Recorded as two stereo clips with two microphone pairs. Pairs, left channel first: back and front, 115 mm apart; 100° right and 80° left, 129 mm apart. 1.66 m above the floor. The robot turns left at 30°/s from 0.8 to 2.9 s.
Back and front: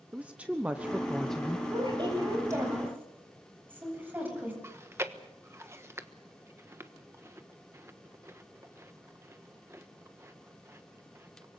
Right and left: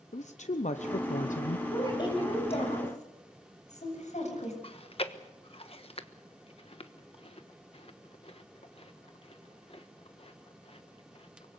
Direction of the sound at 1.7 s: 35° right.